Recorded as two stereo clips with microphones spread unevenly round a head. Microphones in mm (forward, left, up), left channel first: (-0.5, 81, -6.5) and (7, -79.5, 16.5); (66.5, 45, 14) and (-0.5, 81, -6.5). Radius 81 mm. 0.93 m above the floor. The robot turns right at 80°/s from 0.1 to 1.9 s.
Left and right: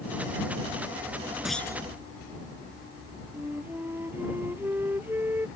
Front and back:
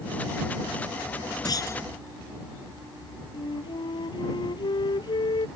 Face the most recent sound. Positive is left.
turn(degrees=-10)